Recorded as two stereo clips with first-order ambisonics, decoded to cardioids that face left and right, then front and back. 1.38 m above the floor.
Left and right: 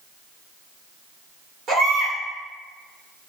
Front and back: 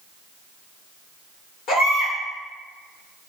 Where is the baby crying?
30° right, 1.6 m.